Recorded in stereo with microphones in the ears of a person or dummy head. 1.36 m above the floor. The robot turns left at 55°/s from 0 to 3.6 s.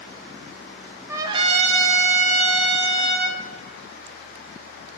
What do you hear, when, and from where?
1.1 s a trumpet: 20° right, 1.0 m; by 3.4 s 145° right, 1.0 m